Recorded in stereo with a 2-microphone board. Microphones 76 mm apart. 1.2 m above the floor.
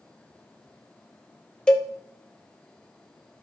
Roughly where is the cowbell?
Centre.